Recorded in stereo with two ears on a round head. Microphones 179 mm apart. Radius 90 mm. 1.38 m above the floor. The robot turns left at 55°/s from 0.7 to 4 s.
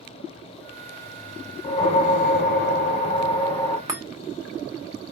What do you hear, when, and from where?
1.6 s a whoosh: 130° left, 1.7 m; by 3.8 s 10° left, 1.7 m
3.9 s a chime: 15° right (ahead or behind), 0.9 m; by 4.0 s 10° right (ahead or behind), 0.9 m